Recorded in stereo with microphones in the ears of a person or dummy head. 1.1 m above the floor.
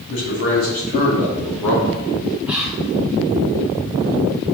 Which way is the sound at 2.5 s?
10° right (ahead or behind).